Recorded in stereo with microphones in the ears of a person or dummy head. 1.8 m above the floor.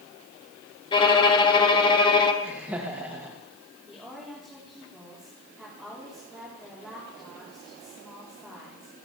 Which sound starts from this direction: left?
A violin, at 0.9 s.